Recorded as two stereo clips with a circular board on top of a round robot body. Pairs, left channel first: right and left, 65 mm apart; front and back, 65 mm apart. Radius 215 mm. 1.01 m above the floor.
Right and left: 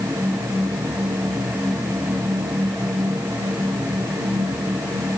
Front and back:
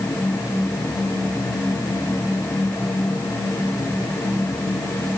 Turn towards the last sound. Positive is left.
No sound to turn to.